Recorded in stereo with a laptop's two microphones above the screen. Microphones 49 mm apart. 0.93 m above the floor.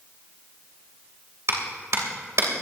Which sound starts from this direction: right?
A clap, at 1.5 s.